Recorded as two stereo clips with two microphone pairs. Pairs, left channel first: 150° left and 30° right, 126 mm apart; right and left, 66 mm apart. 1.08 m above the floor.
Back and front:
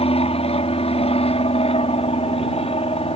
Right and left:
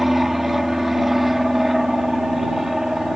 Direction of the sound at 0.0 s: 175° left.